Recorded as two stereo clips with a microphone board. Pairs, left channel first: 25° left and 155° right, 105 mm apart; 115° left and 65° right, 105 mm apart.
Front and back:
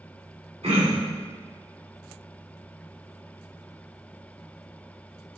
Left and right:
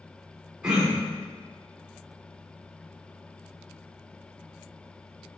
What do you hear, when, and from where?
0.6 s throat clearing: 150° right, 2.5 m